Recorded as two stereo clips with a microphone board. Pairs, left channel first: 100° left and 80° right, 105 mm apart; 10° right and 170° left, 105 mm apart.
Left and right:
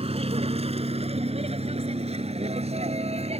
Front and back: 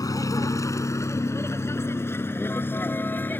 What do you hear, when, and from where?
0.0 s a vehicle: 65° right; by 3.4 s 80° right